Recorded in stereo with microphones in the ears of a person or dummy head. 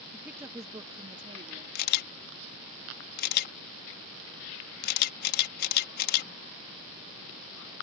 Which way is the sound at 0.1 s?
5° left (ahead or behind).